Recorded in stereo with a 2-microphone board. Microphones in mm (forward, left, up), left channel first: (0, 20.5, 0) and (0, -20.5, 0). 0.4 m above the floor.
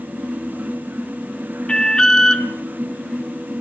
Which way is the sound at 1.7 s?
20° left (ahead or behind).